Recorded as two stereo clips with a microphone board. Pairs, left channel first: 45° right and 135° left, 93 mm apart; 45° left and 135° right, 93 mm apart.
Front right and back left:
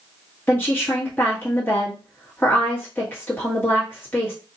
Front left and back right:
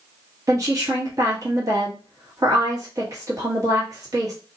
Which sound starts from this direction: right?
A woman speaking, at 0.5 s.